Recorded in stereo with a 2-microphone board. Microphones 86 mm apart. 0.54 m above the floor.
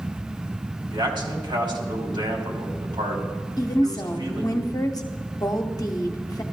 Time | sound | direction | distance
0.9 | a man speaking | 70° right (ahead or behind) | 2.5 m
3.6 | a woman speaking | 45° left (ahead or behind) | 0.9 m